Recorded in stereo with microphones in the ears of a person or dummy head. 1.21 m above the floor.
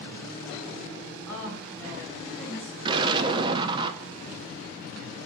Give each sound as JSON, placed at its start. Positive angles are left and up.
{"t": 1.3, "sound": "a woman speaking", "side_deg": 15, "distance_m": 5.0}
{"t": 2.9, "sound": "an explosion", "side_deg": -25, "distance_m": 0.6}